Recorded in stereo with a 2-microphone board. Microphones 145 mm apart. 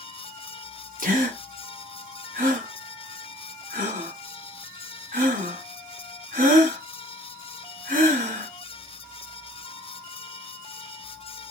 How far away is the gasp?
About 1.9 m.